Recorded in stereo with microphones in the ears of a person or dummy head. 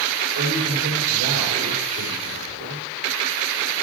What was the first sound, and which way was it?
A man speaking, 65° right (ahead or behind).